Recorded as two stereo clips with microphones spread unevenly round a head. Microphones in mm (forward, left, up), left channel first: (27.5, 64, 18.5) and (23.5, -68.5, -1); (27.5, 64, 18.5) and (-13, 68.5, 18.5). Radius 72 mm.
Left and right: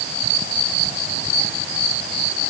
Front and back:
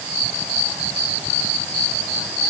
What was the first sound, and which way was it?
Only background noise.